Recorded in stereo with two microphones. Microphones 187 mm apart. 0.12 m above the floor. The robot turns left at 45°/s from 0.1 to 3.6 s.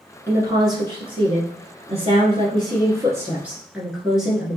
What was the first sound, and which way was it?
A woman speaking, 25° right.